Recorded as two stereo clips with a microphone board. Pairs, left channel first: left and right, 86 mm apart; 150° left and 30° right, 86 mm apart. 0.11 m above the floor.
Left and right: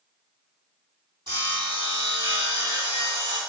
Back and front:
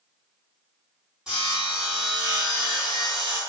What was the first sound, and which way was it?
Sawing, 115° right.